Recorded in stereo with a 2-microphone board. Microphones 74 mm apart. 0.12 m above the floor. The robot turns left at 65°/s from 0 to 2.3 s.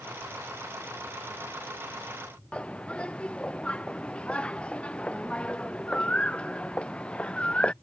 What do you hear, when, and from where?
2.5 s a bird: 15° left (ahead or behind)